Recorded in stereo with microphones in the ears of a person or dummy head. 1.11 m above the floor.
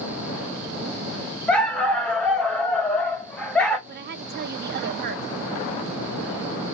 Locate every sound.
1.5 s a dog barking: 5° left (ahead or behind), 0.8 m
3.9 s a woman speaking: 50° right (ahead or behind), 0.6 m